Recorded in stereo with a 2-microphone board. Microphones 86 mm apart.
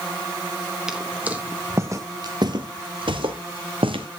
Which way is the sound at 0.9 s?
5° right (ahead or behind).